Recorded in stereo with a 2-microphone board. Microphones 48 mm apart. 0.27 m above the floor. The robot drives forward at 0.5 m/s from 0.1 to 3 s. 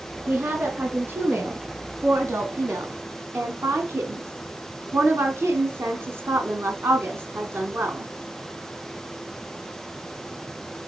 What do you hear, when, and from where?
0.3 s a woman speaking: 50° right (ahead or behind), 3 m; by 8.1 s 65° right (ahead or behind), 2.5 m